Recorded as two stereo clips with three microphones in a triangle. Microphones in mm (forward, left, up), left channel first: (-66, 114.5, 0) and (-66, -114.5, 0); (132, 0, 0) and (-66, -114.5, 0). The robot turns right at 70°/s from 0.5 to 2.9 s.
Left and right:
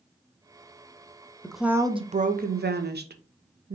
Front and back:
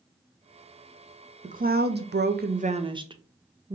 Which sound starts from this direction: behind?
A woman speaking, at 1.4 s.